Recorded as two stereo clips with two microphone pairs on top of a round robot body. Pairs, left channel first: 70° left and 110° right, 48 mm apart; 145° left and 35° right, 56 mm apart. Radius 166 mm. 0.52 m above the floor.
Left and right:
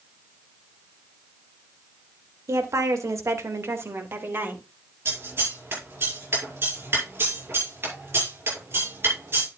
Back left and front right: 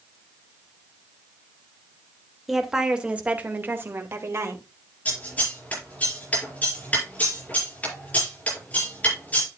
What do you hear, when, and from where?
2.5 s a woman speaking: 120° right, 2 m; by 4.7 s 65° right, 3 m
5.0 s scissors: 155° right, 7 m